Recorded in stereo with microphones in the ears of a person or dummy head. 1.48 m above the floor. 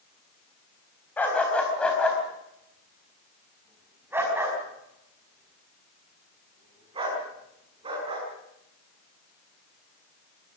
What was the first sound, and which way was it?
A dog barking, 5° left (ahead or behind).